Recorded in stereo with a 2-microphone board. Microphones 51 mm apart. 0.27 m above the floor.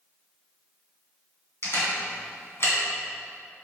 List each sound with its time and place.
1.6 s a camera shutter: 55° left (ahead or behind), 2.5 m